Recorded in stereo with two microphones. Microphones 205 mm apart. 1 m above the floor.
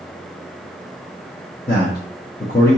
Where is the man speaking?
50° left (ahead or behind), 1.1 m.